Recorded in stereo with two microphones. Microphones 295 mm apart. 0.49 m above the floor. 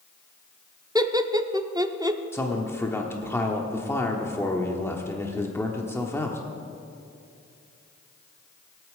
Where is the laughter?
15° right (ahead or behind), 0.7 m.